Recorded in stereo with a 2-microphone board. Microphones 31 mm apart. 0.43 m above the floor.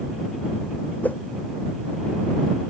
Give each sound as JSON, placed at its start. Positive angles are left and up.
{"t": 1.0, "sound": "a whoosh", "side_deg": 70}